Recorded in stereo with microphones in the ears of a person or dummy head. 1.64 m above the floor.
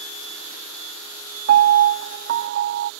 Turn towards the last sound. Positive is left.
turn(degrees=-55)  # may be behind; listen again after turning